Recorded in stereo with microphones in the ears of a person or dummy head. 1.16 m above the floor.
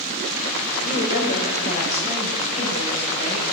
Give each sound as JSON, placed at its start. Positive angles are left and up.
{"t": 0.8, "sound": "a woman speaking", "side_deg": 45, "distance_m": 5.5}